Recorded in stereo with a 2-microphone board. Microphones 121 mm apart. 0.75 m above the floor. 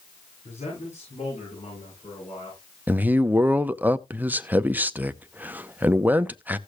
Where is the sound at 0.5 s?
70° left (ahead or behind), 8.5 m; by 2.6 s 60° left (ahead or behind), 9.5 m.